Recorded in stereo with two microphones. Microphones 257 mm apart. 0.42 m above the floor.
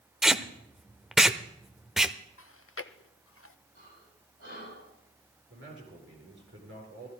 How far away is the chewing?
About 0.5 m.